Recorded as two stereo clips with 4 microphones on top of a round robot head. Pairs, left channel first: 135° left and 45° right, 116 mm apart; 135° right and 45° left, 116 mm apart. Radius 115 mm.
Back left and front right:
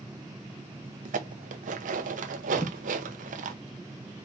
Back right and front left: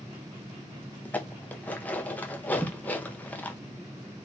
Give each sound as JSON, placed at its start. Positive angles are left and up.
{"t": 1.1, "sound": "dishes clattering", "azimuth_deg": -55, "distance_m": 0.6}
{"t": 2.5, "sound": "a thud", "azimuth_deg": 140, "distance_m": 0.8}